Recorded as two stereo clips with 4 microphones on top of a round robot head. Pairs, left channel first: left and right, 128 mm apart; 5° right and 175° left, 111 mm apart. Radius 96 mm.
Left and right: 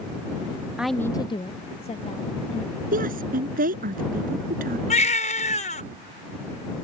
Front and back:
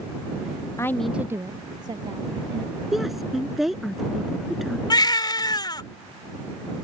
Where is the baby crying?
45° left.